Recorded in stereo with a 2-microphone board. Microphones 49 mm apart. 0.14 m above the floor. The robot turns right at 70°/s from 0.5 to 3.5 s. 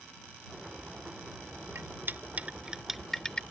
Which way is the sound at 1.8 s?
55° right (ahead or behind).